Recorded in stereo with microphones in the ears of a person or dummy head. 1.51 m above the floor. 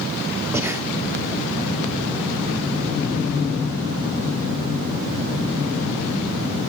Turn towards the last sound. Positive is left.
turn(degrees=-15)  # may be behind; listen again after turning